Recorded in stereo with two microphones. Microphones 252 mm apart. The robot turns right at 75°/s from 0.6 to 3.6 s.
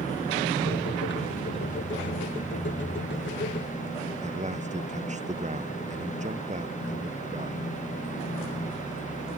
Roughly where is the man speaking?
Right.